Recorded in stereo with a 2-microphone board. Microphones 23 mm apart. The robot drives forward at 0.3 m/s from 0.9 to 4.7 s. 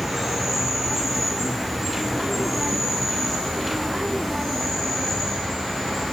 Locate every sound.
0.0 s an insect: 5° right (ahead or behind), 3.5 m